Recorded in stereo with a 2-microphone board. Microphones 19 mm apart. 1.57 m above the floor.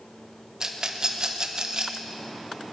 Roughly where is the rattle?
Right.